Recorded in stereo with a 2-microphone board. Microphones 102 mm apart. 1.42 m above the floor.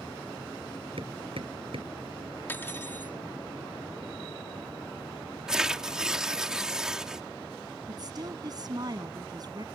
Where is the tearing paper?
10° right (ahead or behind).